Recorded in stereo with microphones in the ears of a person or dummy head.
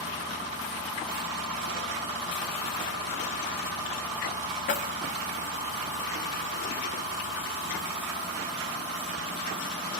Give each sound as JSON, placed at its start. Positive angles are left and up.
{"t": 4.7, "sound": "keys jangling", "side_deg": 40, "distance_m": 0.6}